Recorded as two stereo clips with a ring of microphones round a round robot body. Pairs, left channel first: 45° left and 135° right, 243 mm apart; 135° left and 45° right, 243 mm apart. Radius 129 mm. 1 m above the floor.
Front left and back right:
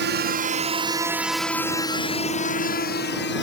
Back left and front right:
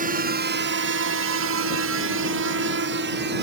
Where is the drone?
95° right; by 3.4 s 5° left.